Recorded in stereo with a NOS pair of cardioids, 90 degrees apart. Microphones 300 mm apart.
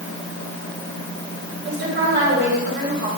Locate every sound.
1.6 s a woman speaking: 35° right, 6 m